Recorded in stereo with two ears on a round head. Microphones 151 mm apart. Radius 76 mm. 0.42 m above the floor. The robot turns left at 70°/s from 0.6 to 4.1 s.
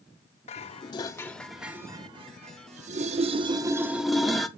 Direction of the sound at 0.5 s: 35° left (ahead or behind).